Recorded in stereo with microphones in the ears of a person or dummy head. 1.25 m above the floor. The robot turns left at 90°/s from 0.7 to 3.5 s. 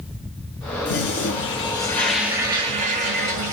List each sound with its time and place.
0.8 s a toilet flushing: 115° left, 1.2 m; by 3.5 s 125° right, 1.2 m